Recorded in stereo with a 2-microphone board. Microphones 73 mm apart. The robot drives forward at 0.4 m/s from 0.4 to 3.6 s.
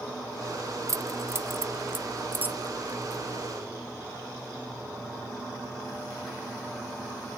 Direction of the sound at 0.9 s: 45° right (ahead or behind).